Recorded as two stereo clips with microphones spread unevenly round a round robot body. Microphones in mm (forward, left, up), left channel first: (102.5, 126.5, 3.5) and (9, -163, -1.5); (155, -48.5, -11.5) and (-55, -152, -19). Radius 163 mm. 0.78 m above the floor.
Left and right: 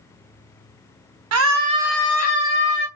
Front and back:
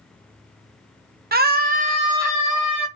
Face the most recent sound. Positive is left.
turn(degrees=110)